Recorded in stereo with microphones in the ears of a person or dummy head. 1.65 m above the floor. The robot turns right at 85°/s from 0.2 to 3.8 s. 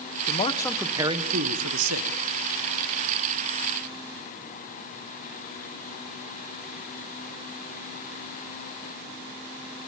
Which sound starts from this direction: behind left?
A man speaking, at 0.3 s.